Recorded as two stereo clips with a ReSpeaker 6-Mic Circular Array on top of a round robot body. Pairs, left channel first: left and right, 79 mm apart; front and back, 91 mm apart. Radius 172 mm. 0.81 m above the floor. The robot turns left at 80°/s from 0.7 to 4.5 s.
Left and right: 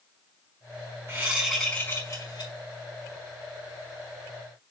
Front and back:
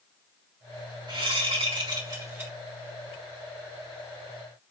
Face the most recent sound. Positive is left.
turn(degrees=-55)